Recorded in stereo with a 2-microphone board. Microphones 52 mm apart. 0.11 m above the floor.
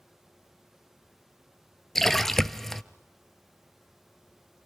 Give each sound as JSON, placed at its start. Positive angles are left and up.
{"t": 1.9, "sound": "a splash", "side_deg": 5, "distance_m": 0.5}